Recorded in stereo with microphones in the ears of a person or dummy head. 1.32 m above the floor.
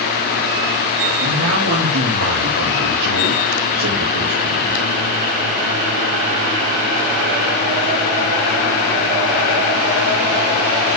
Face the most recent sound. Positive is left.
turn(degrees=-80)